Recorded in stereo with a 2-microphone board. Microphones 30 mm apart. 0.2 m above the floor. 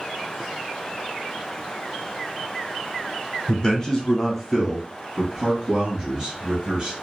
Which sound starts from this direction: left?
A man speaking, at 3.5 s.